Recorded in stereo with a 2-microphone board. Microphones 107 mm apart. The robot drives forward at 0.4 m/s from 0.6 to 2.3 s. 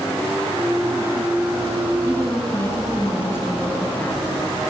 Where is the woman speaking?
30° left (ahead or behind), 3 m.